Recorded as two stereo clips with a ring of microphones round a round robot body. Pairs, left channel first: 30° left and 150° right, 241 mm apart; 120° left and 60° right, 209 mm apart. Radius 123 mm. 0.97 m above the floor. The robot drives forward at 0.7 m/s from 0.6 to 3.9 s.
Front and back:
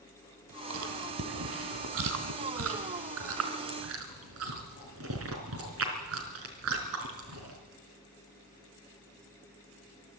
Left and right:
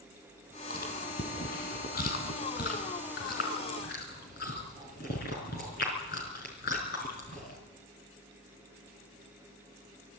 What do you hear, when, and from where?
0.7 s chewing: 175° left, 2 m